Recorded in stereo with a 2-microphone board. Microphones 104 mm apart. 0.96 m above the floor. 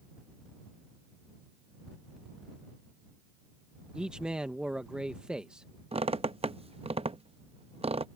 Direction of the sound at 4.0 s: 10° right (ahead or behind).